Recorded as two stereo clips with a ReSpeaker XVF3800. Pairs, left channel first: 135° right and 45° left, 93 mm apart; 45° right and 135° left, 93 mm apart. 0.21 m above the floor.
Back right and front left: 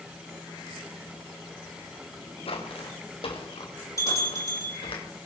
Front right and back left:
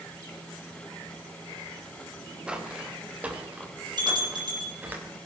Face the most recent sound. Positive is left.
turn(degrees=170)